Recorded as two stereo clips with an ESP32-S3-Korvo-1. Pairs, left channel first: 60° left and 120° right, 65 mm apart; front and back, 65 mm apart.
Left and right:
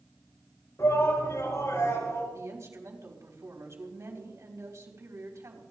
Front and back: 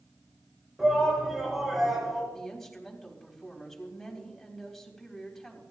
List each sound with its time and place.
0.8 s a shout: 95° left, 6.5 m
2.3 s a woman speaking: 85° right, 4 m